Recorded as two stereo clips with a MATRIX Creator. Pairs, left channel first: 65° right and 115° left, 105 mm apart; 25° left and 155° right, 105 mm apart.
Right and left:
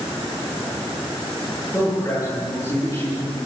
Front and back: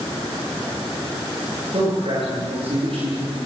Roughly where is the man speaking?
Behind right.